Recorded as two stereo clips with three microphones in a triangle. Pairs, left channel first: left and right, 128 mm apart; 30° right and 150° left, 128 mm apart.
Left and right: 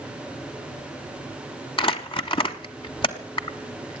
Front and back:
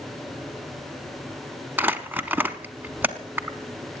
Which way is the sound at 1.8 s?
80° left.